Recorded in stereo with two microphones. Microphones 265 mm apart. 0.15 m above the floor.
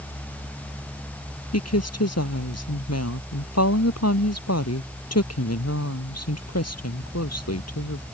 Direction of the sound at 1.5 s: 70° left (ahead or behind).